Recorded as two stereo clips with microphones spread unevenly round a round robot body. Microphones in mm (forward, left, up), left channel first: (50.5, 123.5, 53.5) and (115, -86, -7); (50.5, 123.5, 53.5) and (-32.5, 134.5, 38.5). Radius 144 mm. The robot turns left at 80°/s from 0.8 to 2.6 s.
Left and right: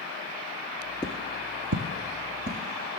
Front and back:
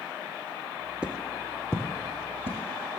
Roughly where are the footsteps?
Left.